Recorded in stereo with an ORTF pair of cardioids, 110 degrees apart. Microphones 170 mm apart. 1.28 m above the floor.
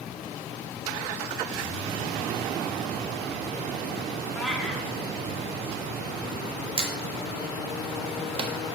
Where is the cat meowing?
Straight ahead, 1.6 m.